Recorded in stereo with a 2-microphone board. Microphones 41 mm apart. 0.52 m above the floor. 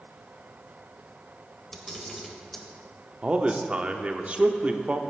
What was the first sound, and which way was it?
A camera shutter, 10° left (ahead or behind).